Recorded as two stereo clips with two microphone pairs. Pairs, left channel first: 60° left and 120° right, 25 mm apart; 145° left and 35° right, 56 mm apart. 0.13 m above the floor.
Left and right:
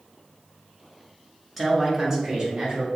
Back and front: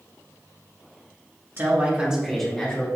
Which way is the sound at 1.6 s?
30° right.